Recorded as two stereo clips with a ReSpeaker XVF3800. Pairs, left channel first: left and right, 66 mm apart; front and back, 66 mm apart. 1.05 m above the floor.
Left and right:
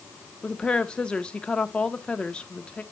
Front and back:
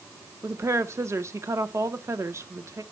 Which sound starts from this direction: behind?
A woman speaking, at 0.4 s.